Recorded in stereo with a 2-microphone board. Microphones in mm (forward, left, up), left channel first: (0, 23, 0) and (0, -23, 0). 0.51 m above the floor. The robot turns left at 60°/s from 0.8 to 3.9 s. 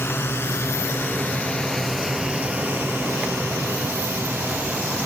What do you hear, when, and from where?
0.0 s a drone: 60° left (ahead or behind); by 5.1 s 65° right (ahead or behind)